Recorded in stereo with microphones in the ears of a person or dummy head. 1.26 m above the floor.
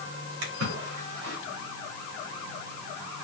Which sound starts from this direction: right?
A splash, at 0.4 s.